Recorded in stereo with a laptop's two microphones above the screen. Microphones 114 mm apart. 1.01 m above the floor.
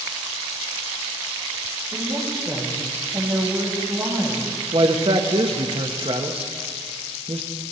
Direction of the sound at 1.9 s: 40° right (ahead or behind).